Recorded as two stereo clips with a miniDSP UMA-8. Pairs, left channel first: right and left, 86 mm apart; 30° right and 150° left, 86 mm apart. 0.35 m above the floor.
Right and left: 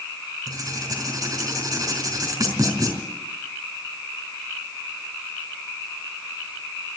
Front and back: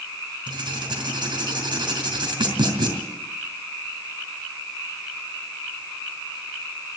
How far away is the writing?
About 4 m.